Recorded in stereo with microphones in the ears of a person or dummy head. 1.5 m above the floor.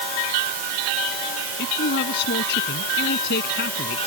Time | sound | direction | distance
1.6 | a man speaking | 60° left (ahead or behind) | ?